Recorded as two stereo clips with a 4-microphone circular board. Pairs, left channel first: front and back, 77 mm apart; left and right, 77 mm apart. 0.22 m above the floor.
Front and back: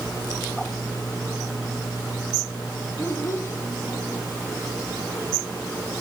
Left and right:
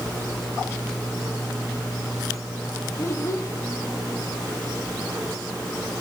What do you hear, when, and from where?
3.0 s a child speaking: 50° left, 1.2 m